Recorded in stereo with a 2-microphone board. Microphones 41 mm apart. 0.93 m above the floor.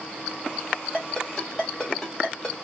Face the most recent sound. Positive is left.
turn(degrees=15)  # may be behind; listen again after turning